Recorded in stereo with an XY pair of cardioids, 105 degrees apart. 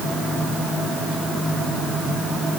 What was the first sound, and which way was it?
Only background noise.